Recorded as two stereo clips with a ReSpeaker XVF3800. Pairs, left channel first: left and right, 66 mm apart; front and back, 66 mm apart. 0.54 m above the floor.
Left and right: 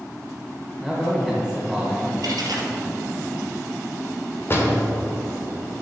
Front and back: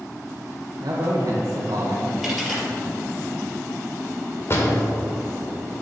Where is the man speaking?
170° left, 1.4 m.